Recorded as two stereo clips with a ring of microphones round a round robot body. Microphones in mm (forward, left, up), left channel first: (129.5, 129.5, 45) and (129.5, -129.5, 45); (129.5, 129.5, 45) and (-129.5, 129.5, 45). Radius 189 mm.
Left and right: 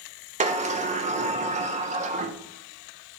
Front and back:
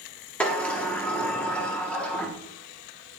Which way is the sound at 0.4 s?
80° right.